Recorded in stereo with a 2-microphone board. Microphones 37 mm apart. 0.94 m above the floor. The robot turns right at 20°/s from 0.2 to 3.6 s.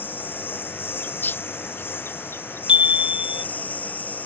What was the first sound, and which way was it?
A lawn mower, 65° left.